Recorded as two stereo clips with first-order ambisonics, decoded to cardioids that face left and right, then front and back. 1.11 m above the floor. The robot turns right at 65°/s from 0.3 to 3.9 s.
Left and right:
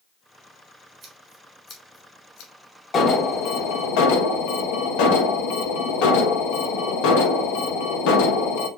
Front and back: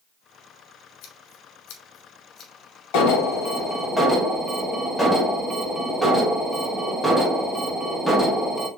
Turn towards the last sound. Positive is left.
turn(degrees=85)